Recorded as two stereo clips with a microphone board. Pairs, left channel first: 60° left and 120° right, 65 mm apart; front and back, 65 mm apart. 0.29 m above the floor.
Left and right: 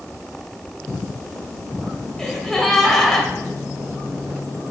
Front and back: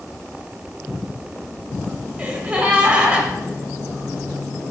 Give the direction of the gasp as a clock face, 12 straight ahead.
7 o'clock.